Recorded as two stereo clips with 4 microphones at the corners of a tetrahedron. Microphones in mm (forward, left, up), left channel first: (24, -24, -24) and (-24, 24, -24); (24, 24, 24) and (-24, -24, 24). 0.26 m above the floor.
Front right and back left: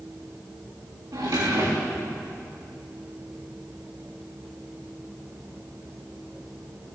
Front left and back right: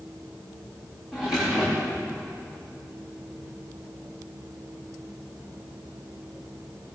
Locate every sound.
1.1 s a drawer: 140° left, 9.5 m